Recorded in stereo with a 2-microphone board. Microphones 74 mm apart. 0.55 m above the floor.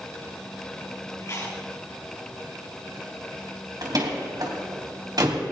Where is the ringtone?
No ringtone in this recording.